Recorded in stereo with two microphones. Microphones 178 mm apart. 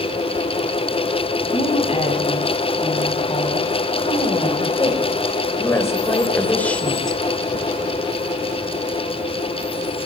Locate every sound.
1.5 s a woman speaking: 30° left (ahead or behind), 7 m; by 7.2 s centre (ahead or behind), 3 m